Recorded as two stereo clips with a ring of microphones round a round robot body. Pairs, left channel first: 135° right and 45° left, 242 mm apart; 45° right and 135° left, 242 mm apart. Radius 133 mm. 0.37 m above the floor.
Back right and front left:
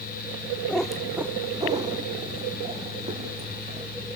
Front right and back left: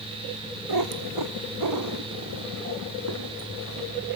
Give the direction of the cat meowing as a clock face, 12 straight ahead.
7 o'clock.